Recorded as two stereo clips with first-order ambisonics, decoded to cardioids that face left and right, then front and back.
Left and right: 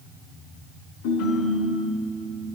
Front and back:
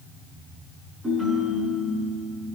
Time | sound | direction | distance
1.0 | a ringtone | 105° left | 6.5 m